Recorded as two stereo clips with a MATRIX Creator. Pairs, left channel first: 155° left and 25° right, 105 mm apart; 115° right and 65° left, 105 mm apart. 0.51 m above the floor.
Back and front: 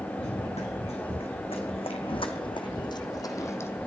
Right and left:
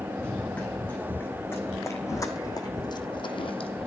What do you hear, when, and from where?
0.2 s running footsteps: 170° left, 3.5 m; by 3.9 s 130° right, 1.4 m